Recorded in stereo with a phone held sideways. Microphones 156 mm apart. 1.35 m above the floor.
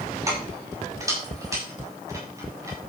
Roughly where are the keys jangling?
Right.